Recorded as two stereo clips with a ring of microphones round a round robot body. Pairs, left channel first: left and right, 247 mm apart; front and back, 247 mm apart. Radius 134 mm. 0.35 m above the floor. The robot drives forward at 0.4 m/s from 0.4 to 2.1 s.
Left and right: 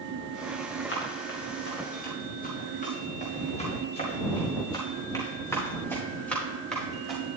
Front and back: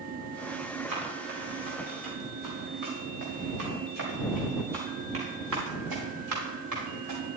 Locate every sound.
0.9 s running footsteps: 130° left, 5 m; by 7.2 s straight behind, 6 m